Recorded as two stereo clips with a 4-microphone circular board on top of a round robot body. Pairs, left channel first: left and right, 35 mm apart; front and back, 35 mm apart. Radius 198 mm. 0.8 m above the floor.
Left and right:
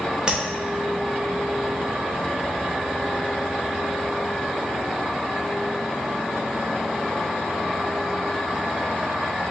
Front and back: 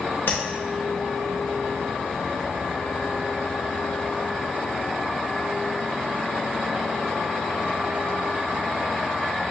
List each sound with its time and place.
0.3 s tapping: 20° right, 1.0 m